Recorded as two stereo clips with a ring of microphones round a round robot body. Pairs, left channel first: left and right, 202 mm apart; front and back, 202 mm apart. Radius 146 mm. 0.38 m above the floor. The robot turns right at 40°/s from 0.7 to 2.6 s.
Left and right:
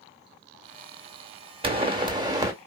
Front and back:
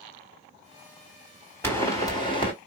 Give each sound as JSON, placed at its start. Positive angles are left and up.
{"t": 1.6, "sound": "a pop", "azimuth_deg": -70, "distance_m": 1.6}